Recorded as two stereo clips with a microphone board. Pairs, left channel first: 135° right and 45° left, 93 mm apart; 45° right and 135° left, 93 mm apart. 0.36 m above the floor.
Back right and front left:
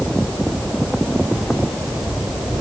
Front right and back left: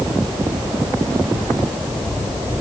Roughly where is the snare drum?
I don't hear a snare drum.